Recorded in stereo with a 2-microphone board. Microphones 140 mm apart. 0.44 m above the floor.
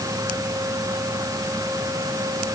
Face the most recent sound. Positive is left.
No sound to turn to.